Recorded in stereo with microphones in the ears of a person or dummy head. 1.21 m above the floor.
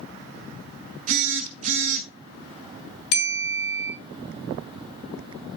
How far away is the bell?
About 3.5 m.